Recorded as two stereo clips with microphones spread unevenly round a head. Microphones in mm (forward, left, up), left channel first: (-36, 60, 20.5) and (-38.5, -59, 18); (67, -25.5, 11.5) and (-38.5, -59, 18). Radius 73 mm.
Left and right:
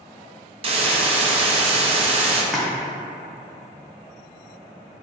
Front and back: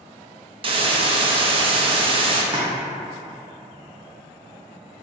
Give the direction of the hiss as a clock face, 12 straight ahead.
4 o'clock.